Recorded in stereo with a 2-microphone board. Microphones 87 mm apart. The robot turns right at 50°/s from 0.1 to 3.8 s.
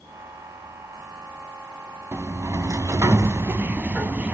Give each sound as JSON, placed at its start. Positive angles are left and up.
{"t": 2.1, "sound": "a sliding door", "azimuth_deg": -120, "distance_m": 0.6}